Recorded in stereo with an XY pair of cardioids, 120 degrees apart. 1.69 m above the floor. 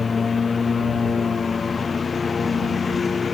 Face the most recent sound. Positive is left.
turn(degrees=30)